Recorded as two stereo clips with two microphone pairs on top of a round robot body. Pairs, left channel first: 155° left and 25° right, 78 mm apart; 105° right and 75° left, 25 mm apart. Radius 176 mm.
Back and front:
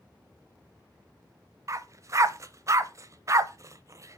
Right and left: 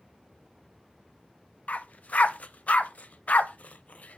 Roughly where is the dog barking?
Right.